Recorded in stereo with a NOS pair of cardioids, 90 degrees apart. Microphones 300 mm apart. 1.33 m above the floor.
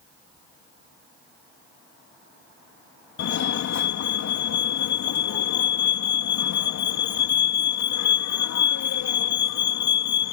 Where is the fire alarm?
65° left.